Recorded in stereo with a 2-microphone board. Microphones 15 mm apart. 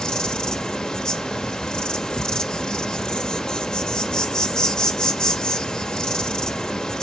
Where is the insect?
80° left, 0.9 m.